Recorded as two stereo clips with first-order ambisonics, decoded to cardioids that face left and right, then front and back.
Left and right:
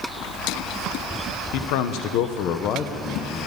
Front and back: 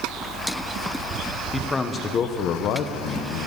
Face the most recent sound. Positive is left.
turn(degrees=20)